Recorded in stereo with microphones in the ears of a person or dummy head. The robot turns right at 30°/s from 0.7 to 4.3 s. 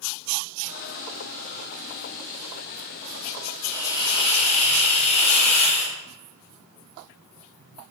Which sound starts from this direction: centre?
A hiss, at 3.6 s.